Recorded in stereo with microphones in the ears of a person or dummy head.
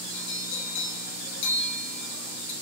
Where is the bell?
65° left (ahead or behind), 1.4 m.